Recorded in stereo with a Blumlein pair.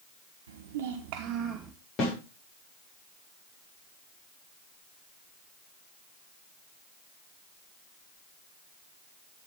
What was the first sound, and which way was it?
A child speaking, 65° right.